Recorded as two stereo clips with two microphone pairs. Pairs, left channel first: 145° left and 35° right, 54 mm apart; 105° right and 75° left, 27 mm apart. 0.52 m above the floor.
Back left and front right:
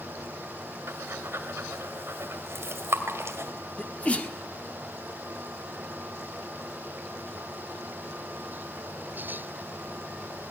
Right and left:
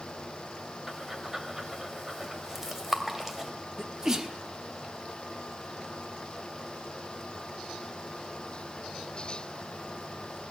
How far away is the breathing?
About 2 m.